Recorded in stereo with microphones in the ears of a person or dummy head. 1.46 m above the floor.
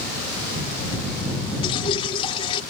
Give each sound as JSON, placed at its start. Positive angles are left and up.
{"t": 1.6, "sound": "dripping", "side_deg": 30}